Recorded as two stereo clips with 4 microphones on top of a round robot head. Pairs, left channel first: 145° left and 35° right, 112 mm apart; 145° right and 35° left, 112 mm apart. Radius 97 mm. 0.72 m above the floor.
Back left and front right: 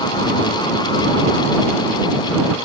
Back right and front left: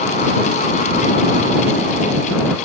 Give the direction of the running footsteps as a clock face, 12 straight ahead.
I don't hear running footsteps.